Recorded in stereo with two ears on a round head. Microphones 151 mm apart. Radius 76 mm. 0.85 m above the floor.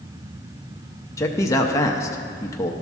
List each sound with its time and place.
1.2 s a man speaking: 20° left (ahead or behind), 0.7 m